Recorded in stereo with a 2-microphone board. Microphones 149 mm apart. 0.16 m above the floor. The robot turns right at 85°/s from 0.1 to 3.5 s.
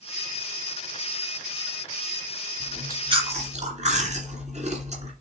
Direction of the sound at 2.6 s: 175° right.